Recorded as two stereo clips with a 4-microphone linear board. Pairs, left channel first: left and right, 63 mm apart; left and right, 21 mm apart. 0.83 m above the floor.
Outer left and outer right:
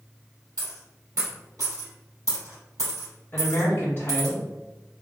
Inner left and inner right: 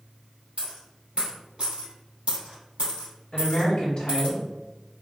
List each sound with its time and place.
0.6 s a dropped coin: 60° right (ahead or behind), 1.7 m
3.3 s a woman speaking: 35° left (ahead or behind), 0.7 m